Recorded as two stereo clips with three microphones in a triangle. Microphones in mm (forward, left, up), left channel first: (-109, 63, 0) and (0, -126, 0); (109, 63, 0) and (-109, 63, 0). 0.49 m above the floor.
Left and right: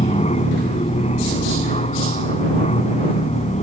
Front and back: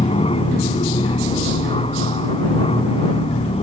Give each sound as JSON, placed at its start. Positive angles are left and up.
{"t": 0.0, "sound": "an aircraft", "azimuth_deg": 60}